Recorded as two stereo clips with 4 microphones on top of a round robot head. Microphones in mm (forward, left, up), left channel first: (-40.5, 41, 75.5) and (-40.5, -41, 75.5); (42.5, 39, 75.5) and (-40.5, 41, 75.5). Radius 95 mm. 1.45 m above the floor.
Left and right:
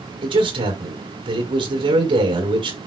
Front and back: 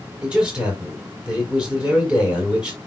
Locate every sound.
0.2 s a man speaking: 100° right, 4.5 m